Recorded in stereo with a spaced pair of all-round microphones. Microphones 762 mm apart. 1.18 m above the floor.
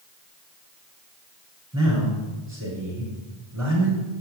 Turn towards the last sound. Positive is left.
turn(degrees=20)  # may be behind; listen again after turning